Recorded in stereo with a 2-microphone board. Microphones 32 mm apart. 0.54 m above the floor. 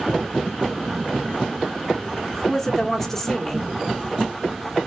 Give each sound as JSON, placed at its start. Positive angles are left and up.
{"t": 2.3, "sound": "a woman speaking", "side_deg": 10, "distance_m": 0.9}